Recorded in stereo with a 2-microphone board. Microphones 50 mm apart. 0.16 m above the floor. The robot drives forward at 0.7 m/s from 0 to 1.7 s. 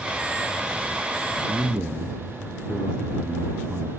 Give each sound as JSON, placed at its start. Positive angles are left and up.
{"t": 1.5, "sound": "a man speaking", "side_deg": -15, "distance_m": 1.8}